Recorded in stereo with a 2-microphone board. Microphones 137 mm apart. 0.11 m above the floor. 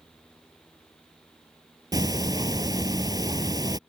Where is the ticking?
30° right (ahead or behind).